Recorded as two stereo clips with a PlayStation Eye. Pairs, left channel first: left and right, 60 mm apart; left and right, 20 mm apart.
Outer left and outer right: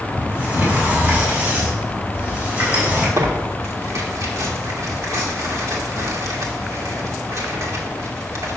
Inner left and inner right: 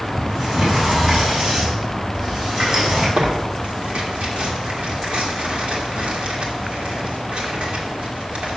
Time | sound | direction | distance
0.2 | a sliding door | 30° right (ahead or behind) | 3.5 m
3.2 | tearing paper | 60° right (ahead or behind) | 1.7 m